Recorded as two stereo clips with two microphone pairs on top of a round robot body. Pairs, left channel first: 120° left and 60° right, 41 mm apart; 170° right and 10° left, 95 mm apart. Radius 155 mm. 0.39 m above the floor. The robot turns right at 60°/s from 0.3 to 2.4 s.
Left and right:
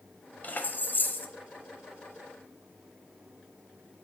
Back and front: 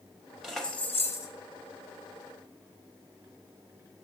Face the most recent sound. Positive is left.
turn(degrees=-145)